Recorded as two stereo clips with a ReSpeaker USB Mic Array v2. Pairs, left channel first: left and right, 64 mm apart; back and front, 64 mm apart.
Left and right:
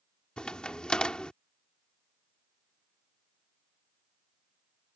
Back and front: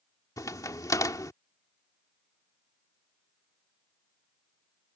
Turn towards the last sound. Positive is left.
turn(degrees=165)